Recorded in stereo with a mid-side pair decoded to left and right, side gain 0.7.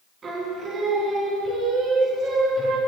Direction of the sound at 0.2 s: 35° right.